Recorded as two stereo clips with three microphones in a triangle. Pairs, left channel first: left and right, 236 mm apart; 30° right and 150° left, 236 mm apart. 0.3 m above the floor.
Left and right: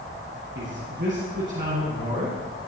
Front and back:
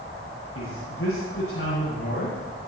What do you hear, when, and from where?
0.6 s a man speaking: 50° right, 8 m